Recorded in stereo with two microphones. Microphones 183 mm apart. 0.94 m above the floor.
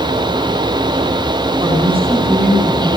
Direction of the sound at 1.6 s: 30° right (ahead or behind).